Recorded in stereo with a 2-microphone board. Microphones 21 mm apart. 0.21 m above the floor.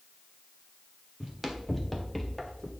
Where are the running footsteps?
5° right (ahead or behind), 2.5 m; by 2.7 s 20° left (ahead or behind), 2 m.